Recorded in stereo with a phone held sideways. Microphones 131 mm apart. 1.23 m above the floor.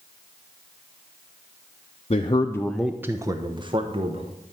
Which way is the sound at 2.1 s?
50° left (ahead or behind).